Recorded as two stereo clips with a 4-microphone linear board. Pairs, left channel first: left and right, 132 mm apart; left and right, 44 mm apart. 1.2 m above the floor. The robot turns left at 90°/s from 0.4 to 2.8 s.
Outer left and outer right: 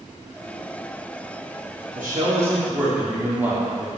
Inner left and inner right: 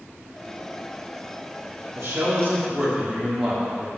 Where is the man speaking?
90° right, 2.5 m; by 3.9 s 165° right, 2.5 m.